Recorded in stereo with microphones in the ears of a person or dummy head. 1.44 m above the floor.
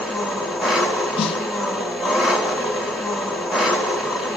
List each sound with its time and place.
0.0 s an engine running: centre (ahead or behind), 1.8 m
1.2 s a snare drum: 40° left (ahead or behind), 0.8 m